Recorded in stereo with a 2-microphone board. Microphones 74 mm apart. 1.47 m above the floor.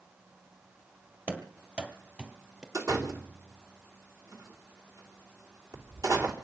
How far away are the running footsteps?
About 2 m.